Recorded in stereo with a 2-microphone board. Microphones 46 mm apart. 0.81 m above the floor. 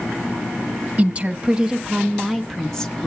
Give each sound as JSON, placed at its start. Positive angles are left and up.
{"t": 1.0, "sound": "a woman speaking", "side_deg": -35, "distance_m": 1.0}